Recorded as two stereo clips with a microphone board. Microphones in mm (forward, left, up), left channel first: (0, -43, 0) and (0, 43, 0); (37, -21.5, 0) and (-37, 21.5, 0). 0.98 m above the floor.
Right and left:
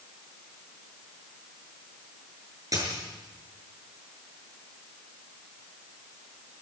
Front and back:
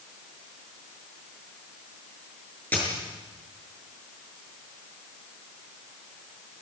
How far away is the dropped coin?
About 6.5 m.